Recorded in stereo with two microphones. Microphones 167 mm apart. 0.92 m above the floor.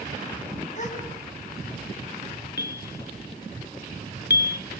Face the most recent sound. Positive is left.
turn(degrees=75)  # may be behind; listen again after turning